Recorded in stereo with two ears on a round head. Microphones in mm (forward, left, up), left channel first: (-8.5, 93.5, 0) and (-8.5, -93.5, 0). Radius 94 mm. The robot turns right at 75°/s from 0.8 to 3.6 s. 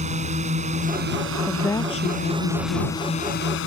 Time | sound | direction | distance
0.0 | a drone | 145° right | ?
1.5 | a woman speaking | 5° right | ?